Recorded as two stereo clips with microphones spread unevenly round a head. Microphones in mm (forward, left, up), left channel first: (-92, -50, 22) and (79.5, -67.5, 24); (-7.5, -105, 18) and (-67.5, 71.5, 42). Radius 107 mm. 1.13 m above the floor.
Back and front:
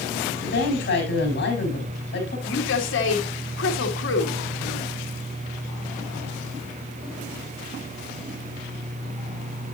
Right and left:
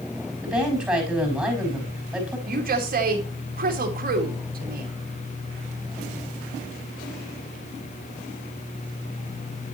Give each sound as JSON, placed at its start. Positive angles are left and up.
{"t": 0.4, "sound": "a woman speaking", "azimuth_deg": -165, "distance_m": 4.5}
{"t": 2.5, "sound": "a woman speaking", "azimuth_deg": 155, "distance_m": 2.0}